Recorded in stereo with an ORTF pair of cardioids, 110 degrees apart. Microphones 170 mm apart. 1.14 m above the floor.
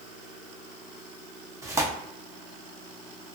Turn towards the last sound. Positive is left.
turn(degrees=-15)